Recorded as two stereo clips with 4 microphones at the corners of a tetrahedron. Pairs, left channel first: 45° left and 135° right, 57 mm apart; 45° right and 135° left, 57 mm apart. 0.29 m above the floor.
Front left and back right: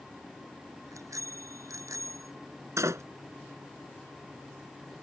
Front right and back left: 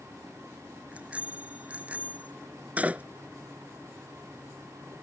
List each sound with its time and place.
0.9 s a bicycle bell: 160° right
2.8 s a door slam: 165° right